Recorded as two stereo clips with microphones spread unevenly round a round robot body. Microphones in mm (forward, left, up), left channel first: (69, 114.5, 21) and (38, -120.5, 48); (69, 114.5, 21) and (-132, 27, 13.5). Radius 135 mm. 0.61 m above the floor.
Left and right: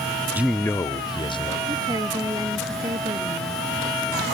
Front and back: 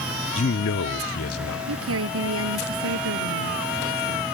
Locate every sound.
0.3 s a man speaking: 10° right; by 1.6 s 15° left
1.7 s a woman speaking: 175° right